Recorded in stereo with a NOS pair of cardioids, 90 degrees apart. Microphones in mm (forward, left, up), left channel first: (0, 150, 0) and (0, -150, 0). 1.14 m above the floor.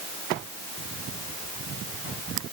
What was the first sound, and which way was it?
Only background noise.